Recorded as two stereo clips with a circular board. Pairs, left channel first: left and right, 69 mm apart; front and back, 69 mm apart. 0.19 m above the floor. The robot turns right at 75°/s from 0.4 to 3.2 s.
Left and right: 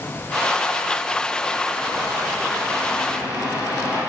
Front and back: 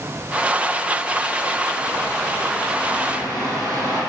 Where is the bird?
10° left, 4.5 m; by 4.0 s 120° left, 4.5 m.